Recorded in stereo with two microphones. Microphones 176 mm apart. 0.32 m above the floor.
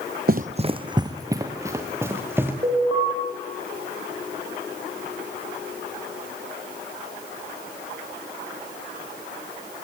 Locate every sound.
0.3 s running footsteps: 55° right (ahead or behind), 0.5 m; by 2.5 s 10° right (ahead or behind), 3.5 m
2.6 s an alarm: 30° right (ahead or behind), 9 m